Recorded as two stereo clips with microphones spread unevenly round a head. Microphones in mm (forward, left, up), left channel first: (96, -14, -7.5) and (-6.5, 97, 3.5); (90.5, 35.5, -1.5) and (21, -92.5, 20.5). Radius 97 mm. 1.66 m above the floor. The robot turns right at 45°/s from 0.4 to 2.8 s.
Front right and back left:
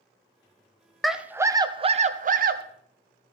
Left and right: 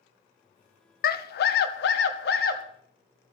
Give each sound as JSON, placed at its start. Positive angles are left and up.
{"t": 1.0, "sound": "a scream", "azimuth_deg": 45, "distance_m": 0.7}